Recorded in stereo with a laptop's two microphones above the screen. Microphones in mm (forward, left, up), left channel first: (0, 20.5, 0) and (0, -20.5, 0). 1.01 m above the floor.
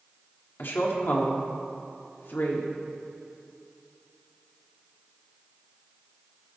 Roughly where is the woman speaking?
Left.